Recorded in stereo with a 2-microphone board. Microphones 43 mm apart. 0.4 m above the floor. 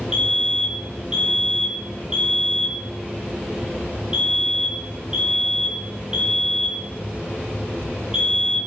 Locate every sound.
0.1 s a fire alarm: 20° right (ahead or behind), 3.5 m